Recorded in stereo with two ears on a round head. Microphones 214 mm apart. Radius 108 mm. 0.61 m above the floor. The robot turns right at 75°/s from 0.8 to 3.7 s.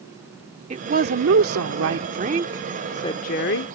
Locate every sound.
0.7 s a woman speaking: 145° right; by 3.7 s 70° left